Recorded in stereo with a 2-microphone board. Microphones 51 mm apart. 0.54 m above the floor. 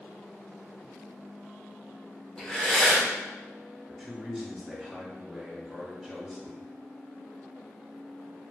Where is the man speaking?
Centre (ahead or behind), 1.9 m.